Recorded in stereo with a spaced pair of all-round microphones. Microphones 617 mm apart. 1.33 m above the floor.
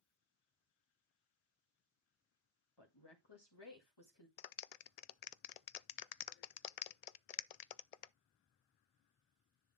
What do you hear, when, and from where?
2.8 s a woman speaking: 40° left (ahead or behind), 2.0 m
4.4 s a clap: 80° left, 0.5 m